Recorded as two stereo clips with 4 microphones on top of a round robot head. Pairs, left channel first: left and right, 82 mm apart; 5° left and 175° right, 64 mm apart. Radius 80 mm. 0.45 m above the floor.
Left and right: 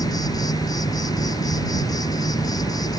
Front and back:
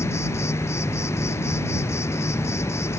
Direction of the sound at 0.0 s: 50° left.